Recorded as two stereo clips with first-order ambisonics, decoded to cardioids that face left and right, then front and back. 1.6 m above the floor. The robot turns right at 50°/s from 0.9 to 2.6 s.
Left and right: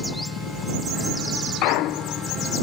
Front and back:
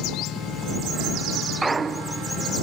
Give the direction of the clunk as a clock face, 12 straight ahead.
9 o'clock.